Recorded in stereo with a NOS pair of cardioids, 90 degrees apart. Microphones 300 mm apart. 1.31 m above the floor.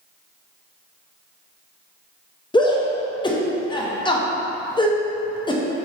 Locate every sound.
2.5 s a shout: 15° left, 0.7 m